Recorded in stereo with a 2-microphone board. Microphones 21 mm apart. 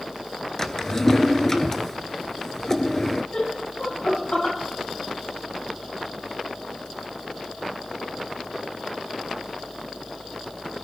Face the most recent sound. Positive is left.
turn(degrees=55)  # may be behind; listen again after turning